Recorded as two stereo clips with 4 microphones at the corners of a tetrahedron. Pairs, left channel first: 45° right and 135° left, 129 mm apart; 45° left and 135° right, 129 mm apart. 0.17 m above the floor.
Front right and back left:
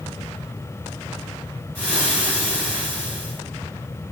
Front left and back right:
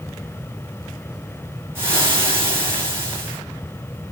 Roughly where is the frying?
Behind.